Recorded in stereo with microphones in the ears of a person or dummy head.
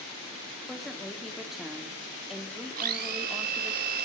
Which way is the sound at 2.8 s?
55° right (ahead or behind).